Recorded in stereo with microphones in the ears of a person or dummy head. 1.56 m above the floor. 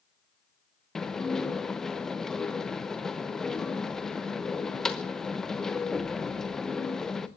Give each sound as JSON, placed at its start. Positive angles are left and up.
{"t": 0.9, "sound": "dishes clattering", "side_deg": 5, "distance_m": 0.7}